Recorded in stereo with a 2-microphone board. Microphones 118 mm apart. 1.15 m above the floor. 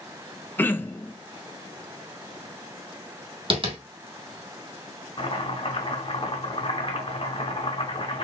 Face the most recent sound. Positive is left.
turn(degrees=50)  # may be behind; listen again after turning